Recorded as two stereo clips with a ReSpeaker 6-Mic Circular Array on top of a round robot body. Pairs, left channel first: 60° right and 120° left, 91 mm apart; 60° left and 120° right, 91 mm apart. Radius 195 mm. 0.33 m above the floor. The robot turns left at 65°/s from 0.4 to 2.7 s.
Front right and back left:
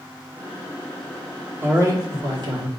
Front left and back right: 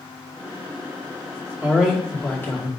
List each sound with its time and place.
1.6 s a man speaking: straight behind, 2 m; by 2.7 s 110° left, 2 m